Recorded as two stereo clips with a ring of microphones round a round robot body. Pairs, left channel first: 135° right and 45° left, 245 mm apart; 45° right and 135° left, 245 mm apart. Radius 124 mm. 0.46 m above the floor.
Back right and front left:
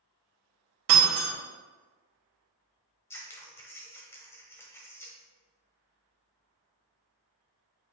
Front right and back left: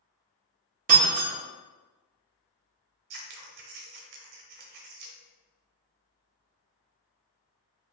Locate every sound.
0.9 s breaking glass: 80° left, 1.4 m
3.1 s scissors: 145° left, 0.8 m